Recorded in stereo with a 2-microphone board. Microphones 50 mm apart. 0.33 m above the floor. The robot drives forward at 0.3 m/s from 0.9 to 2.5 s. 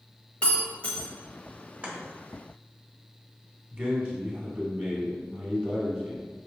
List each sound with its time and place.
0.4 s breaking glass: 25° left (ahead or behind), 0.9 m
1.8 s chopping: 25° right (ahead or behind), 1.0 m
3.7 s a man speaking: 30° right (ahead or behind), 1.6 m